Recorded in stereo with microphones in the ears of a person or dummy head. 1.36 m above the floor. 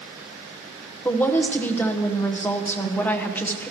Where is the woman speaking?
10° left (ahead or behind), 1.1 m.